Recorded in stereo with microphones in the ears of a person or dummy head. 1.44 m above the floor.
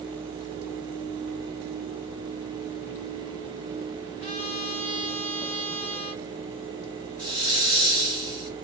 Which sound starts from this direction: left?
A trumpet, at 4.2 s.